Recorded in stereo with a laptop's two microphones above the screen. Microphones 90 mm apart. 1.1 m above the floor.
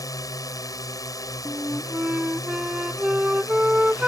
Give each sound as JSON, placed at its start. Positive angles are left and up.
{"t": 0.0, "sound": "a drone", "side_deg": 40}
{"t": 1.4, "sound": "a flute", "side_deg": -10}